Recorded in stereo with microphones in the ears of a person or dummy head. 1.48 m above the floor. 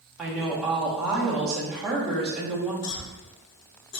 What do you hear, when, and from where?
0.2 s a woman speaking: centre (ahead or behind), 1.1 m
2.8 s a cough: 70° left (ahead or behind), 0.9 m